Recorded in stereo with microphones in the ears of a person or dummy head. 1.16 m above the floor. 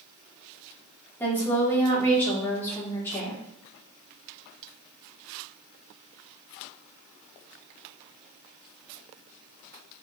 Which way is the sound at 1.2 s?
15° left (ahead or behind).